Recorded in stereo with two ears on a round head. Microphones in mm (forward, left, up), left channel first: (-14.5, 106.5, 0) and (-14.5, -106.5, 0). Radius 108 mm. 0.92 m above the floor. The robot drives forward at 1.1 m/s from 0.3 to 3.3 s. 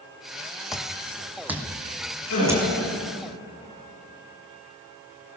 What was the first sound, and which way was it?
Footsteps, centre (ahead or behind).